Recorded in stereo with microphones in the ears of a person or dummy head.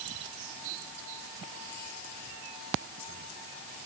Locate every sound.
Only background noise.